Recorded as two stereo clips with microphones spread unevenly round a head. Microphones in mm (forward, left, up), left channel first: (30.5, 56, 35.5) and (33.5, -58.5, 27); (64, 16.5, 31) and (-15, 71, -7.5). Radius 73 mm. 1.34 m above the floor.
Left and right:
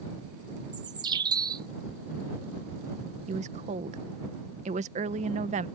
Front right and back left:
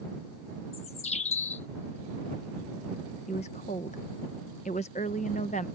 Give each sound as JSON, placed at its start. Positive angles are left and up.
{"t": 0.7, "sound": "a bird", "azimuth_deg": -35}
{"t": 3.3, "sound": "a woman speaking", "azimuth_deg": -80}